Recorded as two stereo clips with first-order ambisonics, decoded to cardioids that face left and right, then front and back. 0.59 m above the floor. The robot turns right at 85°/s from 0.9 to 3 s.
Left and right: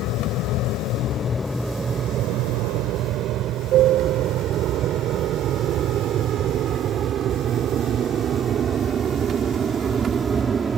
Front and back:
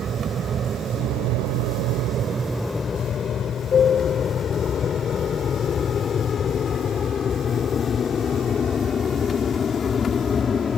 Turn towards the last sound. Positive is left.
turn(degrees=-45)